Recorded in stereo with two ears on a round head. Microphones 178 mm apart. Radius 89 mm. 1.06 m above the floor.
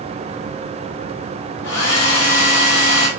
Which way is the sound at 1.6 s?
60° left (ahead or behind).